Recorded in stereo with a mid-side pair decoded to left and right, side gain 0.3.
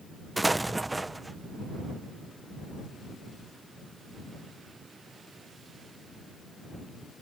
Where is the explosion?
20° right.